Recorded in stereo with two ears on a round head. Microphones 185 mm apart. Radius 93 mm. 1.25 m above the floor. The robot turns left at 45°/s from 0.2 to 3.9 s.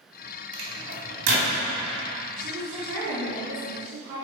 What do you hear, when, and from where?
0.5 s a microwave: 25° right (ahead or behind), 2.5 m; by 1.5 s 65° right (ahead or behind), 2.5 m
2.4 s a woman speaking: 45° right, 2 m; by 4.2 s 110° right, 2 m